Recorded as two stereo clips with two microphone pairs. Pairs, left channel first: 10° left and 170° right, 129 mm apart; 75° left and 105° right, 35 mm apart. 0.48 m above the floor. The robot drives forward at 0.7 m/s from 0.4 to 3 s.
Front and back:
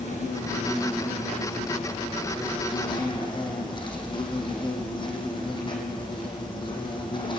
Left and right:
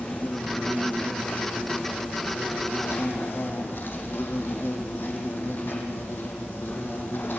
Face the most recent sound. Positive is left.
turn(degrees=65)